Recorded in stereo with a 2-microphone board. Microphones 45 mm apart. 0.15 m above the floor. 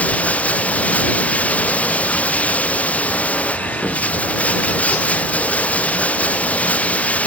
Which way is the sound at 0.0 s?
30° left (ahead or behind).